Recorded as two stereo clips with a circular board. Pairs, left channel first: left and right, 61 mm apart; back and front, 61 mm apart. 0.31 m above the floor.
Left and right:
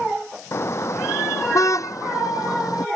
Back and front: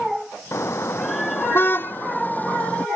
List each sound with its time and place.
0.5 s a car horn: 135° left; by 2.9 s 110° left